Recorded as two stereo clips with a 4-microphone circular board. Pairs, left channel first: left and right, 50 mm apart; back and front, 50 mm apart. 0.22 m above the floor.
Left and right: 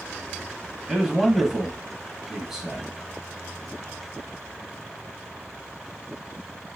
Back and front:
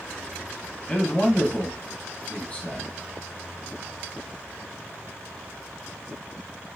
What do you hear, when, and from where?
0.9 s a man speaking: 165° right, 1.2 m